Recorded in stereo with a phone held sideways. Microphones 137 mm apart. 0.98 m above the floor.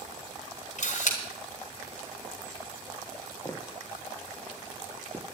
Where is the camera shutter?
60° left (ahead or behind), 3.5 m.